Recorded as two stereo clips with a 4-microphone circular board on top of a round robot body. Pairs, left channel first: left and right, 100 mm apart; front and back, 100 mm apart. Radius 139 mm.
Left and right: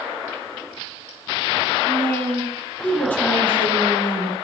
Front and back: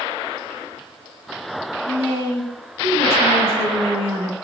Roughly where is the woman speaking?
Behind.